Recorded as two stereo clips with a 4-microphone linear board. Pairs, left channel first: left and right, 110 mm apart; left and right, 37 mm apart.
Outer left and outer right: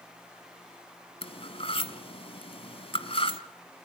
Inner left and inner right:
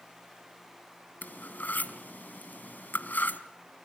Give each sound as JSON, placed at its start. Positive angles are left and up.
{"t": 1.2, "sound": "cutlery clinking", "side_deg": 55, "distance_m": 1.3}